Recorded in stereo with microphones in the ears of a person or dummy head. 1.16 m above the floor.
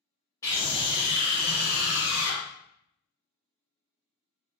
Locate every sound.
0.4 s a scream: 20° left (ahead or behind), 1.1 m; by 2.4 s 70° left (ahead or behind), 0.9 m